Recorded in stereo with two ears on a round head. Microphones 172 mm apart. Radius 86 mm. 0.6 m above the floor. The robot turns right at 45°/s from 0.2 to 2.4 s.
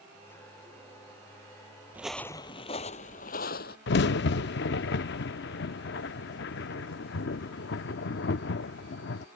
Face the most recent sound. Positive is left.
turn(degrees=60)  # may be behind; listen again after turning